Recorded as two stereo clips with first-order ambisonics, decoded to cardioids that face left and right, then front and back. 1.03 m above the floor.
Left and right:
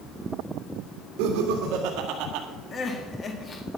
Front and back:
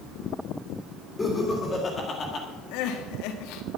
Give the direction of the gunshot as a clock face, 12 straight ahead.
No gunshot in this recording.